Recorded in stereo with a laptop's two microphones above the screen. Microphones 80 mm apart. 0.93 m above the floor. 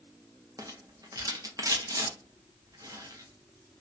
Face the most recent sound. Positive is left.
turn(degrees=-45)  # may be behind; listen again after turning